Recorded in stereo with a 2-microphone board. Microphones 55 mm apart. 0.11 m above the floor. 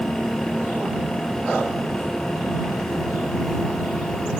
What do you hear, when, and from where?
Only background noise.